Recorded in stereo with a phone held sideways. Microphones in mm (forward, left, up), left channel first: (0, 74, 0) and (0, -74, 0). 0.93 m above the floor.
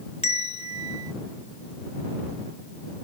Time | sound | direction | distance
0.2 | a bell | 45° left (ahead or behind) | ?